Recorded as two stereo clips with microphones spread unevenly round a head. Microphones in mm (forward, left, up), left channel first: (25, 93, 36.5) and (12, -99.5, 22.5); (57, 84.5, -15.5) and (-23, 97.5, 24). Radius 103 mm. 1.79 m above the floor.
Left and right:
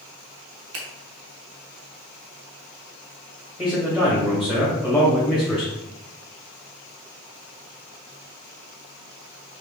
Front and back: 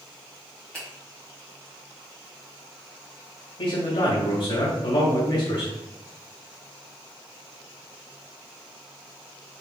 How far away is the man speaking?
About 2 m.